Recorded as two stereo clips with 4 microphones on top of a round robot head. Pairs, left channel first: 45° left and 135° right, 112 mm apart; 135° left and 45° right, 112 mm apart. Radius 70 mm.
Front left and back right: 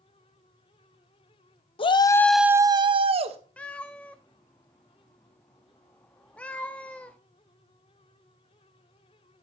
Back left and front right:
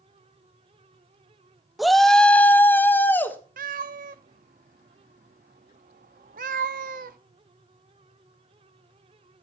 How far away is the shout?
About 0.7 m.